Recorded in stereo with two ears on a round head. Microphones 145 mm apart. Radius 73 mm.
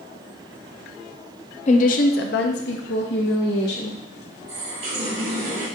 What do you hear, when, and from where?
1.7 s a woman speaking: 45° left (ahead or behind), 0.6 m; by 4.0 s 65° left (ahead or behind), 1.3 m
4.5 s a running tap: 75° right (ahead or behind), 2 m